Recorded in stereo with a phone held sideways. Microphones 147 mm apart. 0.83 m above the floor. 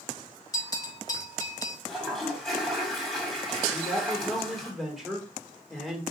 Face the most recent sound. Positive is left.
turn(degrees=0)  # may be behind; listen again after turning